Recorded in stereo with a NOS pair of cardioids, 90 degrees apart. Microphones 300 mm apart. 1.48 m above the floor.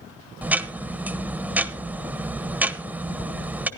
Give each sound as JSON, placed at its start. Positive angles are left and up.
{"t": 0.4, "sound": "ticking", "azimuth_deg": -5, "distance_m": 1.0}